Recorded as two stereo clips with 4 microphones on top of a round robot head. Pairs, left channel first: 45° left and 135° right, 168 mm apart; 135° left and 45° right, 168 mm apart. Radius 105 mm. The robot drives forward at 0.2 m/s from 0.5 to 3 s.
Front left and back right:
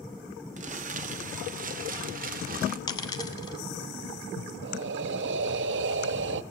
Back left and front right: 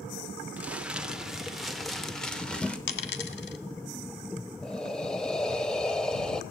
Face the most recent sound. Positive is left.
turn(degrees=-140)